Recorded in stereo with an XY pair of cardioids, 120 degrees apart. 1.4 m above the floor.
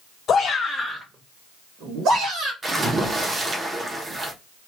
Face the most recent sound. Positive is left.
turn(degrees=-30)